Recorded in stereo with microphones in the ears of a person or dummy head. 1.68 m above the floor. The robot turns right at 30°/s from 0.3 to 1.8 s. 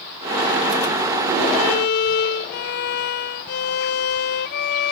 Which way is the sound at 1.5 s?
55° left (ahead or behind).